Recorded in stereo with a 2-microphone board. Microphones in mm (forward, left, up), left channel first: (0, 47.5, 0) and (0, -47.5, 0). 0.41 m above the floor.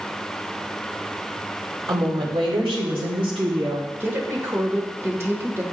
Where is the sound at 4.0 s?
25° right (ahead or behind), 1.2 m.